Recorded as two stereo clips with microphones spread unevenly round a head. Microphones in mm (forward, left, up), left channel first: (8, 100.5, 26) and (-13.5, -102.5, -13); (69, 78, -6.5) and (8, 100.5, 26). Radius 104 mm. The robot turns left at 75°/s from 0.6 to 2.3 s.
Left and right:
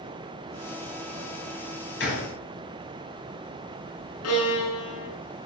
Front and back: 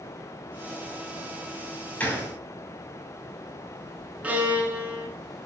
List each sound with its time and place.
2.0 s a gunshot: 45° left, 5.5 m; by 2.3 s 20° left, 5.5 m
4.2 s a violin: 95° left, 6 m